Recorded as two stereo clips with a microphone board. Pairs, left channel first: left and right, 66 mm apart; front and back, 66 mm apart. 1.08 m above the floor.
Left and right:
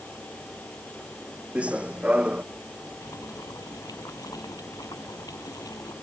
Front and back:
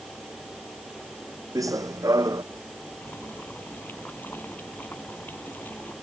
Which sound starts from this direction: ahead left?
Boiling, at 3.0 s.